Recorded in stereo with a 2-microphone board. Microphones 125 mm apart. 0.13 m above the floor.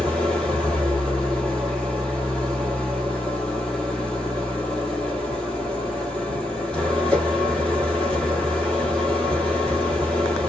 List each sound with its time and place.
0.0 s an engine running: 5° left (ahead or behind), 1.3 m